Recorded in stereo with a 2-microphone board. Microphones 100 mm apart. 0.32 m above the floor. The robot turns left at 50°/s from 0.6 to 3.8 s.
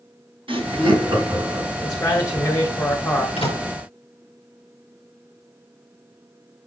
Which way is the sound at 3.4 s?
75° left (ahead or behind).